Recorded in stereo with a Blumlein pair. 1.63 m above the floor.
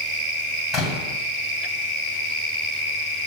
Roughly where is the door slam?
Ahead.